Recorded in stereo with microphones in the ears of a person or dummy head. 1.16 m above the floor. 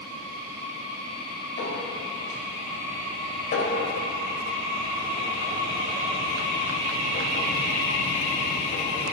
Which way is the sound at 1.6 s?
60° left (ahead or behind).